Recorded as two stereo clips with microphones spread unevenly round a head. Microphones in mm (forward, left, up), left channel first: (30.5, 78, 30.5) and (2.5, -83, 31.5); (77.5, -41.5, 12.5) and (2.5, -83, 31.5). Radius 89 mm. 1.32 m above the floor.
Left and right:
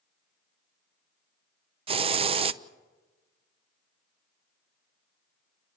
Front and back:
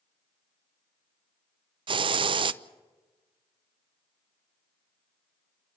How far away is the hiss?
About 0.6 m.